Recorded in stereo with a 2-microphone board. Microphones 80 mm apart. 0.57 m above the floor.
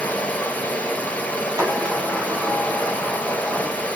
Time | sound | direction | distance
0.0 | running water | 20° left (ahead or behind) | 0.9 m
1.6 | a sliding door | 55° right (ahead or behind) | 3 m